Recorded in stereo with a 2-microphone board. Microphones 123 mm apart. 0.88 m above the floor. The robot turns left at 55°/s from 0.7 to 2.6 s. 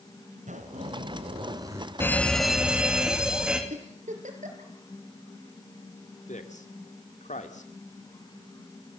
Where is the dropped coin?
No dropped coin in this recording.